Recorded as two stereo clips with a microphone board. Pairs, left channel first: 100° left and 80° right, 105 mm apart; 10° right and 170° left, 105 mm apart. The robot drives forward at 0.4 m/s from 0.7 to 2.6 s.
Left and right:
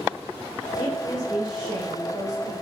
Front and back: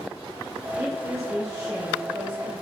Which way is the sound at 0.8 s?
105° left.